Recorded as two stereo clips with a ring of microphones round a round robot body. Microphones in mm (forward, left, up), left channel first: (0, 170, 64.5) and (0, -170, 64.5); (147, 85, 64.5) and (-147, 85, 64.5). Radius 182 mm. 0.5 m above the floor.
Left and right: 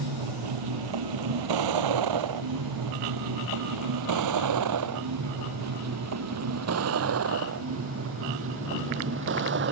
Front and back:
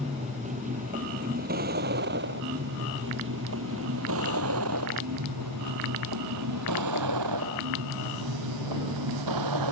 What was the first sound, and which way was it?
A vehicle, 105° right.